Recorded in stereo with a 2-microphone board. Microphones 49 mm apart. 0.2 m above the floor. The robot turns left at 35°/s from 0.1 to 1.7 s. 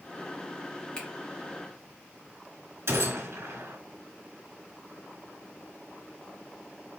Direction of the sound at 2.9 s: 65° right (ahead or behind).